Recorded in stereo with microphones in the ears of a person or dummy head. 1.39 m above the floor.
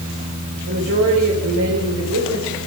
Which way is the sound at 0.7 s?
70° right (ahead or behind).